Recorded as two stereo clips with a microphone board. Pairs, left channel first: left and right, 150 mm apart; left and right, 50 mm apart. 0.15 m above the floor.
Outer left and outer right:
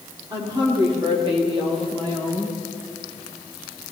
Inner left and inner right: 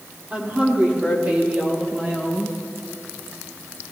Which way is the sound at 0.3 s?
30° right (ahead or behind).